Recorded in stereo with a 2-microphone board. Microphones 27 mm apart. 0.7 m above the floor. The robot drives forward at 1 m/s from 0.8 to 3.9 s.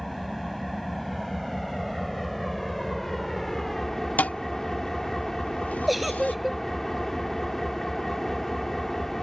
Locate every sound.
0.0 s an engine running: 5° left (ahead or behind); by 9.2 s 10° left (ahead or behind)
4.2 s a thud: 90° left
5.9 s a giggle: 5° right (ahead or behind)